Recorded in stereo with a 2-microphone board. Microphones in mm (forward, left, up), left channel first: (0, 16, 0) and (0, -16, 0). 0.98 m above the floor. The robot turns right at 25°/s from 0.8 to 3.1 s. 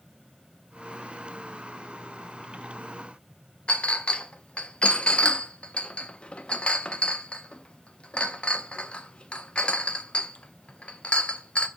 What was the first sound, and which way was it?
A clink, 35° left (ahead or behind).